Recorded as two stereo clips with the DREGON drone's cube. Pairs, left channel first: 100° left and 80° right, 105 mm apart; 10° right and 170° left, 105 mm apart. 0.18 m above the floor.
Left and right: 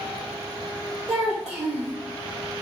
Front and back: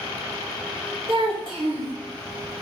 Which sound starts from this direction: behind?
A child speaking, at 1.1 s.